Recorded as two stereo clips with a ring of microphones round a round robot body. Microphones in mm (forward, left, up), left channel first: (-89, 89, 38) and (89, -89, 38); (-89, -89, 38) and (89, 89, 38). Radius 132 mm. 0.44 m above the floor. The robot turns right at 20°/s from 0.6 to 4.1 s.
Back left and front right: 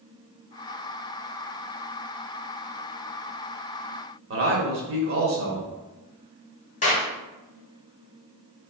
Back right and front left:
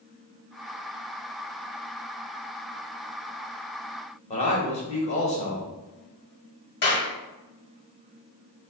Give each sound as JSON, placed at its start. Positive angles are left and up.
{"t": 4.3, "sound": "a man speaking", "azimuth_deg": -75, "distance_m": 1.5}
{"t": 6.8, "sound": "a clap", "azimuth_deg": -170, "distance_m": 1.6}